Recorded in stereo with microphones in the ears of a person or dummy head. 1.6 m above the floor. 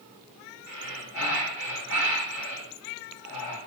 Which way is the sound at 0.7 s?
70° left (ahead or behind).